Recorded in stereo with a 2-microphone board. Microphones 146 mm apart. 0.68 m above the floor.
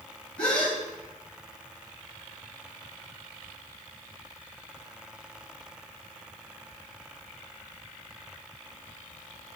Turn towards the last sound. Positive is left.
turn(degrees=10)  # may be behind; listen again after turning